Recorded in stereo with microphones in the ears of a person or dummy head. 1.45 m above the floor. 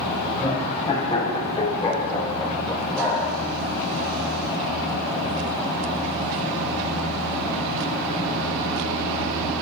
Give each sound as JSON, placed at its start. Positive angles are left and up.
{"t": 0.3, "sound": "laughter", "side_deg": 25, "distance_m": 5.5}